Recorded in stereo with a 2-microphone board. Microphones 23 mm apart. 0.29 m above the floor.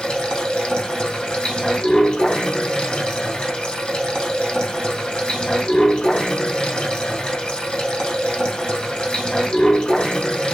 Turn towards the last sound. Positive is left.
turn(degrees=35)  # may be behind; listen again after turning